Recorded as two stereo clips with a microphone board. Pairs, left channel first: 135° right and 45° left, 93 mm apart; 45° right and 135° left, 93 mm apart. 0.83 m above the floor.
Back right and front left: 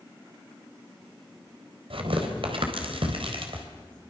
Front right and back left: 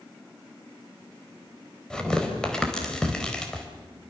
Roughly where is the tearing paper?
Ahead left.